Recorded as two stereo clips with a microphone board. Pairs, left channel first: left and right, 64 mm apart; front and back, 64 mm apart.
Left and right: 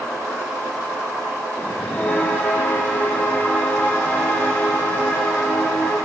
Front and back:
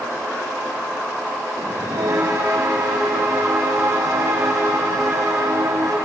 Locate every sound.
1.6 s a bell: 150° left, 6.5 m